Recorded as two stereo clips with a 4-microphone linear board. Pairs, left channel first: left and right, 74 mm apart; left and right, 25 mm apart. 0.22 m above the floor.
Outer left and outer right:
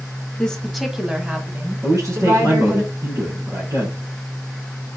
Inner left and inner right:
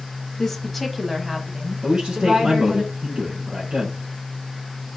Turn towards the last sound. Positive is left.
turn(degrees=-50)  # may be behind; listen again after turning